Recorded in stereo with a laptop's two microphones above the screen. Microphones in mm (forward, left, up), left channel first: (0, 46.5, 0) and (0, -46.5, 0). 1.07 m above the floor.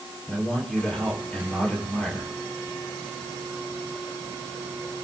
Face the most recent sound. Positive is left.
turn(degrees=10)  # may be behind; listen again after turning